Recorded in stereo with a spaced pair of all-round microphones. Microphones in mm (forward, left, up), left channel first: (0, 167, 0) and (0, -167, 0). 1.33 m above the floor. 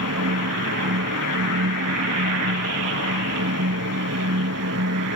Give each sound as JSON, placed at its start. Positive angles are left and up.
{"t": 0.0, "sound": "a fan", "side_deg": -50}